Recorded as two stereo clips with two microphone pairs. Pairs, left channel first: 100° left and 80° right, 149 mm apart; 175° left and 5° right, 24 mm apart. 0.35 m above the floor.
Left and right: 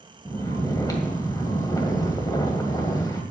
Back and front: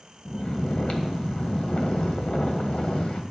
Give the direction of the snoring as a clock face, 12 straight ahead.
7 o'clock.